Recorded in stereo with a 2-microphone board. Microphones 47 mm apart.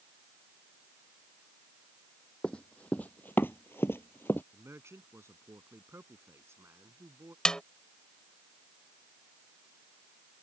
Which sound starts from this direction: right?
A man speaking, at 4.5 s.